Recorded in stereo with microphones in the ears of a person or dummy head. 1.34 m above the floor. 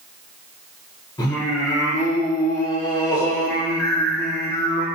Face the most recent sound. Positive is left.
turn(degrees=20)  # may be behind; listen again after turning